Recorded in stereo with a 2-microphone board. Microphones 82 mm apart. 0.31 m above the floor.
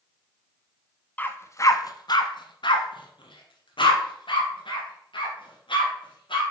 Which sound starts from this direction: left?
A dog barking, at 1.2 s.